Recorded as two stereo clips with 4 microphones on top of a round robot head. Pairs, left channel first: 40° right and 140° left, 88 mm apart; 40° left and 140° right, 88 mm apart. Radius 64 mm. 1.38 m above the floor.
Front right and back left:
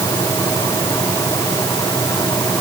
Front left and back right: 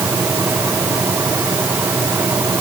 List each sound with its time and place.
Only background noise.